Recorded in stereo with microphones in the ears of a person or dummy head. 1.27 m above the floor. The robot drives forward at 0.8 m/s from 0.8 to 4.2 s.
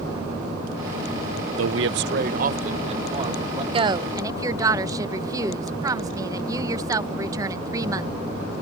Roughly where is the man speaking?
Right.